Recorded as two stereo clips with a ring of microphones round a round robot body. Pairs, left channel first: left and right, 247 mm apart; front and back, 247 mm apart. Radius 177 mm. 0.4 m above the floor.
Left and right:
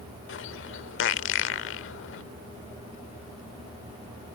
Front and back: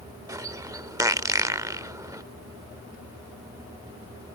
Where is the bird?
105° left.